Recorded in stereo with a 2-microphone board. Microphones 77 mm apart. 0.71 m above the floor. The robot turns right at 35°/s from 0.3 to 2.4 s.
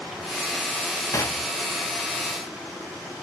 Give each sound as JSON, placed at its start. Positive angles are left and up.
{"t": 1.1, "sound": "knocking", "side_deg": 40, "distance_m": 0.7}